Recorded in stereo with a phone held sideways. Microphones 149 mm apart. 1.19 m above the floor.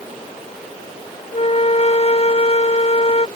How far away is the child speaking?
No child speaking in this recording.